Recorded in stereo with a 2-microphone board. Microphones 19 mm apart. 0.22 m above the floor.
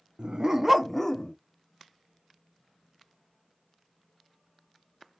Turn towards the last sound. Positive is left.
turn(degrees=35)  # may be behind; listen again after turning